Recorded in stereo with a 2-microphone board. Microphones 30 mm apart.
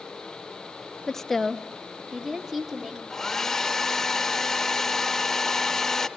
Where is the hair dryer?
15° left (ahead or behind), 0.7 m.